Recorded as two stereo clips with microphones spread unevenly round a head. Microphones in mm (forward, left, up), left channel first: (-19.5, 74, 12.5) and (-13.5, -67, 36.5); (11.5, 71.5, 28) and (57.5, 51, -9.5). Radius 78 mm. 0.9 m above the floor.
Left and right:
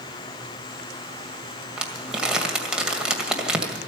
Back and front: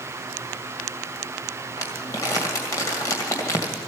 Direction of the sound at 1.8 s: 170° right.